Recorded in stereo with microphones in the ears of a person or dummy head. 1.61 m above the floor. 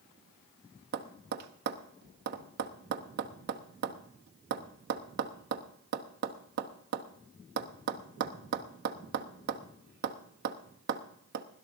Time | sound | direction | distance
0.9 | tapping | 55° right (ahead or behind) | 0.9 m